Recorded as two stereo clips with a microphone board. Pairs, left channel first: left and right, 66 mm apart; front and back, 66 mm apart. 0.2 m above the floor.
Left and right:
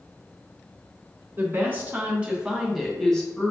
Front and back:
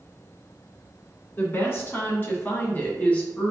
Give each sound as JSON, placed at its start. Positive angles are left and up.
{"t": 1.4, "sound": "a woman speaking", "azimuth_deg": -45, "distance_m": 1.7}